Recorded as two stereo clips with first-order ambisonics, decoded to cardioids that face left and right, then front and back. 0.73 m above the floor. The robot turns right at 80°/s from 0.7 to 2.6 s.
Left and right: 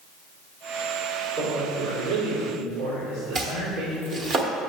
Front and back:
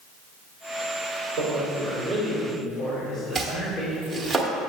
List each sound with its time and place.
1.4 s a man speaking: 145° right, 3 m; by 4.3 s 45° right, 3 m
3.4 s chopping: 100° right, 1.1 m